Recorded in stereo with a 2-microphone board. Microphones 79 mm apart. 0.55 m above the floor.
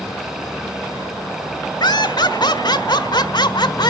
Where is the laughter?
65° left (ahead or behind), 1.4 m.